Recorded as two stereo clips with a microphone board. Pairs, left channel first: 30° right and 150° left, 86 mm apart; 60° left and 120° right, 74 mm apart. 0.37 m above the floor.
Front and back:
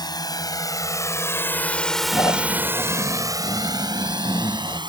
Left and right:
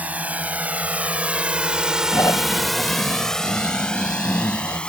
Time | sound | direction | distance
0.0 | a drone | 50° right | ?
2.1 | snoring | 20° left | ?